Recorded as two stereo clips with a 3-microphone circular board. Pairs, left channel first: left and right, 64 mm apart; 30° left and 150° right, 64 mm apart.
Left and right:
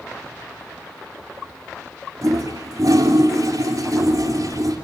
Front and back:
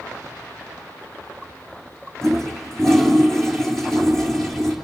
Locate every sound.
2.2 s a toilet flushing: 55° right, 4 m